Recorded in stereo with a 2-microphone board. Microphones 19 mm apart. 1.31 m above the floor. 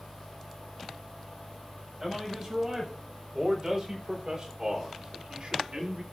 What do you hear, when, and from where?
2.0 s a man speaking: 20° right (ahead or behind), 6 m; by 6.0 s 60° right (ahead or behind), 2.5 m